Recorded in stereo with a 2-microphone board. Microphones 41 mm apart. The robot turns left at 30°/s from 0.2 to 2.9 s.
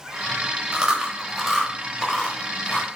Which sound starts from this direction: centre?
Chewing, at 0.7 s.